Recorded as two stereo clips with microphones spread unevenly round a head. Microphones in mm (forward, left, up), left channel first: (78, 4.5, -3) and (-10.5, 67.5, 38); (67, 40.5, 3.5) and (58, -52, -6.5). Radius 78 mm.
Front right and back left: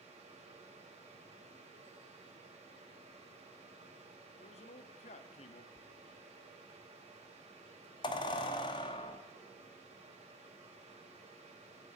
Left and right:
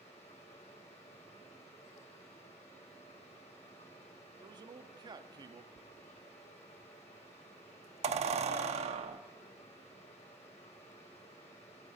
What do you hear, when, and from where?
0.0 s a fan: 115° left, 2.5 m
4.4 s a man speaking: 55° right, 1.4 m
5.8 s a squeak: 95° right, 0.9 m